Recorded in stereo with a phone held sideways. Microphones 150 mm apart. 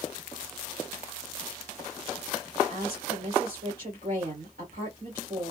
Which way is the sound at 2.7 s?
80° right.